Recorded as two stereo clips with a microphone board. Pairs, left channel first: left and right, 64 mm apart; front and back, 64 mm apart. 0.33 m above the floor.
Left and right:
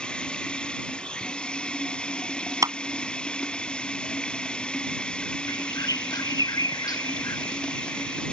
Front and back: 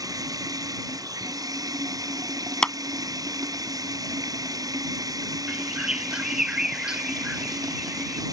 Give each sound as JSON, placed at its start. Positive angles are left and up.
{"t": 0.0, "sound": "running water", "azimuth_deg": 165}
{"t": 2.6, "sound": "a clap", "azimuth_deg": -75}
{"t": 5.5, "sound": "a bird", "azimuth_deg": 100}